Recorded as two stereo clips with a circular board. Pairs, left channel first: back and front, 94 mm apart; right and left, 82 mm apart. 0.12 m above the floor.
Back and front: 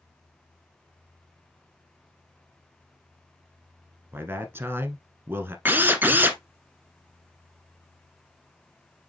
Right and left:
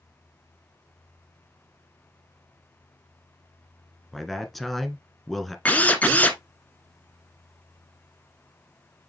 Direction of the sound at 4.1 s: Straight ahead.